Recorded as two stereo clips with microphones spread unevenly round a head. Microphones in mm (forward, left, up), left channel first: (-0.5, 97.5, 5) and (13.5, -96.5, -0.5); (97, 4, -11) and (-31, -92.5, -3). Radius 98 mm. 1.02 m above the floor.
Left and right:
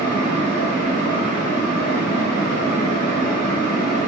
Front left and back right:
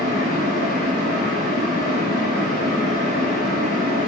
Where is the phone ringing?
No phone ringing in this recording.